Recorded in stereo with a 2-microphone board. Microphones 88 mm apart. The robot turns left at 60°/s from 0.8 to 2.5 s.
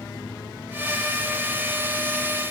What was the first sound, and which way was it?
Only background noise.